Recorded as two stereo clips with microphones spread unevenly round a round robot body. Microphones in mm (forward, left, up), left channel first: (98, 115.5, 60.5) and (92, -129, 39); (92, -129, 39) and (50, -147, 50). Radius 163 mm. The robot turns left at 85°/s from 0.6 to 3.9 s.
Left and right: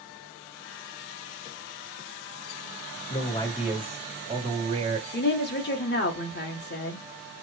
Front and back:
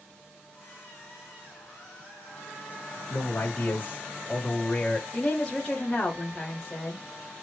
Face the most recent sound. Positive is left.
turn(degrees=65)